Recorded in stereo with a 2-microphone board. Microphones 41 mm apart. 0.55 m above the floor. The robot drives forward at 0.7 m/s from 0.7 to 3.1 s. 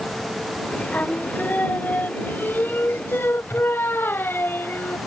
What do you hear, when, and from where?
0.9 s singing: 40° left (ahead or behind); by 5.0 s 65° left (ahead or behind)